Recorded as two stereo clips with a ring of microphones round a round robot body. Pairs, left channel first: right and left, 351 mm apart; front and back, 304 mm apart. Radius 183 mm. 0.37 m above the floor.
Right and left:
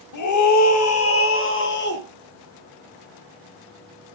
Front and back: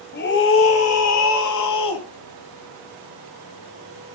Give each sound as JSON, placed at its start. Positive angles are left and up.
{"t": 0.1, "sound": "a scream", "azimuth_deg": -60, "distance_m": 2.0}